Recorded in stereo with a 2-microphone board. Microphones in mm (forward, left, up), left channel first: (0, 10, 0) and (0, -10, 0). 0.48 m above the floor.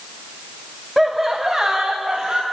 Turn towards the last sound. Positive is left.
turn(degrees=-35)  # may be behind; listen again after turning